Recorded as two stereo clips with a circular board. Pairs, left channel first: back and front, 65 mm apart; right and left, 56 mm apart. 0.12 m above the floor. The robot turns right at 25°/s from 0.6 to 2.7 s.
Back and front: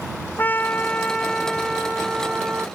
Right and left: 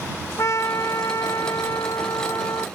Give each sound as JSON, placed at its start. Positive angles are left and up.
{"t": 0.4, "sound": "a trumpet", "azimuth_deg": -120}